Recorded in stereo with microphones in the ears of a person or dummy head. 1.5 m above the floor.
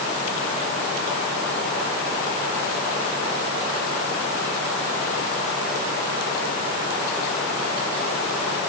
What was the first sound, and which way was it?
Only background noise.